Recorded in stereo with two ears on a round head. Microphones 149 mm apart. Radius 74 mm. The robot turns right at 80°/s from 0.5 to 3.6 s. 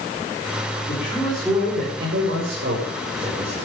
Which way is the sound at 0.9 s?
140° left.